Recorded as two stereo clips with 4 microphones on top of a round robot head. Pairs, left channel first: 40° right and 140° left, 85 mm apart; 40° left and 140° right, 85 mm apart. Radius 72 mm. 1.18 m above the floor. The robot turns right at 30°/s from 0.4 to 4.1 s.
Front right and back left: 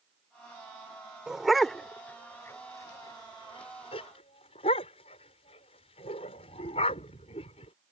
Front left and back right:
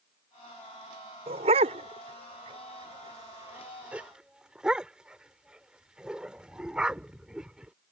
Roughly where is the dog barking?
Behind right.